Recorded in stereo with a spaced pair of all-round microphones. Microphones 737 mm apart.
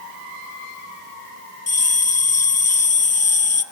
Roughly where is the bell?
Left.